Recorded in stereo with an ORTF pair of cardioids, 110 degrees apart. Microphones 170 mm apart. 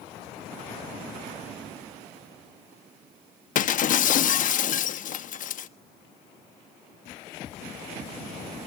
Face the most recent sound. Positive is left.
turn(degrees=55)